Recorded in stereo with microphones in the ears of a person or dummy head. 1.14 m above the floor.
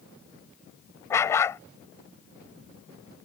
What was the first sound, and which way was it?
A dog barking, 10° left (ahead or behind).